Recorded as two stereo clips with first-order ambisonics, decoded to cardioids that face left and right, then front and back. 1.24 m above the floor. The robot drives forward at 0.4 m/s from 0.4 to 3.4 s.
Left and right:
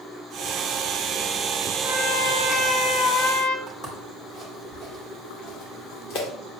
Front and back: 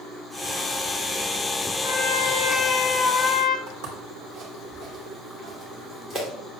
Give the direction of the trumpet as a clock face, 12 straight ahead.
11 o'clock.